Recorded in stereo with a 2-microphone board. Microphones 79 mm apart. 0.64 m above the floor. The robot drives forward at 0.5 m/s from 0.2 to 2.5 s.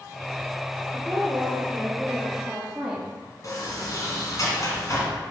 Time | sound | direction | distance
0.9 | a woman speaking | 10° right (ahead or behind) | 1.8 m
3.4 | a sliding door | 45° left (ahead or behind) | 1.9 m